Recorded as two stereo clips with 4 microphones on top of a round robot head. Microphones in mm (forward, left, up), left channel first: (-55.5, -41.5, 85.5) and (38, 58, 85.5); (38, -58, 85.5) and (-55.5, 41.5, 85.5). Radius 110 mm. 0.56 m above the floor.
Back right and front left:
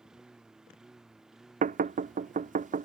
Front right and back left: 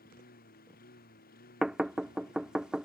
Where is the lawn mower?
40° right.